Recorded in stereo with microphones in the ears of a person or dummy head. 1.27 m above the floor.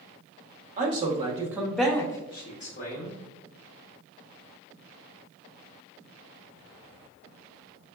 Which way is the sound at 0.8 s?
40° right (ahead or behind).